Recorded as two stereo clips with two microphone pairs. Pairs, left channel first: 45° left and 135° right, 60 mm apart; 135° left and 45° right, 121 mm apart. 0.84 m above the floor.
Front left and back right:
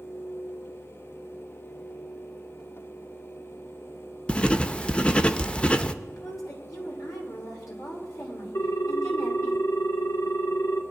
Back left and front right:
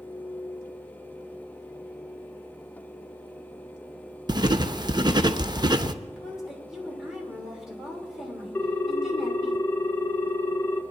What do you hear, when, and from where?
4.3 s writing: 15° right, 0.5 m
6.1 s a woman speaking: 40° left, 3 m
8.6 s a ringtone: 60° left, 0.7 m